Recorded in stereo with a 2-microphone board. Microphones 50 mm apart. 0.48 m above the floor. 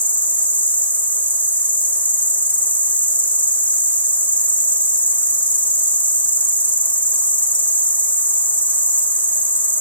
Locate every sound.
0.0 s an insect: 35° left (ahead or behind), 0.8 m